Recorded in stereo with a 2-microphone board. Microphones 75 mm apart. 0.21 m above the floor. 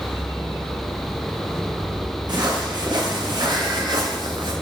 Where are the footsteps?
75° right (ahead or behind), 4.5 m; by 4.5 s 85° right, 2.5 m.